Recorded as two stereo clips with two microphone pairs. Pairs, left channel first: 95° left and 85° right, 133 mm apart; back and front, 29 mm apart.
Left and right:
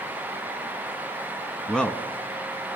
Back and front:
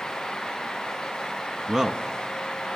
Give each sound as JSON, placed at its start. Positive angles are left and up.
{"t": 1.7, "sound": "a man speaking", "azimuth_deg": 5, "distance_m": 1.1}